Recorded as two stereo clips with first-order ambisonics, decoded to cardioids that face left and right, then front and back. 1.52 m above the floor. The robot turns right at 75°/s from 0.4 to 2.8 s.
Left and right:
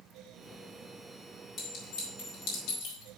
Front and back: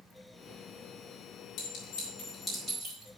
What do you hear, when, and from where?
1.6 s a clink: 25° left, 4.5 m; by 3.1 s 115° left, 4.5 m